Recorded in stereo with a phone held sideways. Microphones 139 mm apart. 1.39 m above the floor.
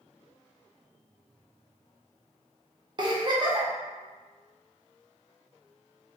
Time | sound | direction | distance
3.0 | a giggle | 35° right (ahead or behind) | 0.7 m